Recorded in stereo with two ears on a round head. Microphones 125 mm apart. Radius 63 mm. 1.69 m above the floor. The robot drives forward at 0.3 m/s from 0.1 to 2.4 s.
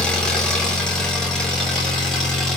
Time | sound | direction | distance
0.0 | an engine running | 5° left (ahead or behind) | 1.2 m